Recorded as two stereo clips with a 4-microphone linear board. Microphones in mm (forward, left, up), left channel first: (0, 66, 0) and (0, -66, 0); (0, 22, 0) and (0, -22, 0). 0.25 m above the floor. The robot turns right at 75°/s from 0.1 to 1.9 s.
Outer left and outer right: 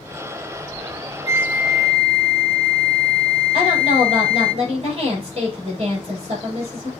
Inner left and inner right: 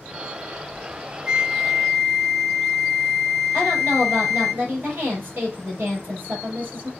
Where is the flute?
40° right, 0.7 m; by 4.5 s 10° left, 0.7 m.